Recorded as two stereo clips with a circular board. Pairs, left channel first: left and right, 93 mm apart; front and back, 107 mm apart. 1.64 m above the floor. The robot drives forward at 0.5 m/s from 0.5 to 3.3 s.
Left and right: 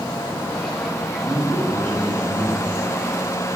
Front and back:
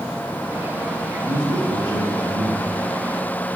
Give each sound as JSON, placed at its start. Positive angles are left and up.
{"t": 1.1, "sound": "a man speaking", "azimuth_deg": -120, "distance_m": 2.5}